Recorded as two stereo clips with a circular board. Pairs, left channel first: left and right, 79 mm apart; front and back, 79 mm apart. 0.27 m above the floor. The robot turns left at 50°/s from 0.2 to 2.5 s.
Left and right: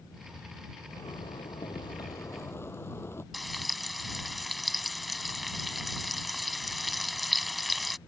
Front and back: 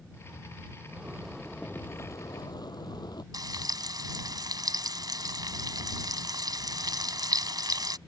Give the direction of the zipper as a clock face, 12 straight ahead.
8 o'clock.